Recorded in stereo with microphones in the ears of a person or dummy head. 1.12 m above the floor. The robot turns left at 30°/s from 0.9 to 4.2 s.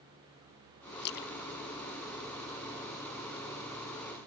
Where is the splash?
50° left (ahead or behind); by 3.0 s centre (ahead or behind).